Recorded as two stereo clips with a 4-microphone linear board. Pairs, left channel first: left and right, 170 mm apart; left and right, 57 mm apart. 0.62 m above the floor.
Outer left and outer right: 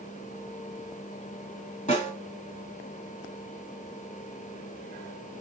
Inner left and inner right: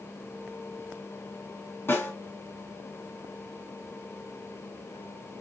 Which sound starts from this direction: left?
A snare drum, at 1.9 s.